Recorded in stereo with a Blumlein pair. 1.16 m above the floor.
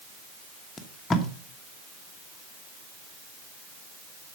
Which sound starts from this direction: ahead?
Tape being pulled, at 0.8 s.